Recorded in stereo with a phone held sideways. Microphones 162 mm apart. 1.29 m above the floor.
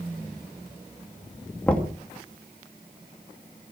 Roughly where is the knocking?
Centre.